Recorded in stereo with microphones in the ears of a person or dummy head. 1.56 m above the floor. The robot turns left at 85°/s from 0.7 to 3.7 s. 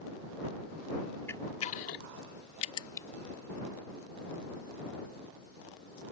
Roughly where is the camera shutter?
Centre.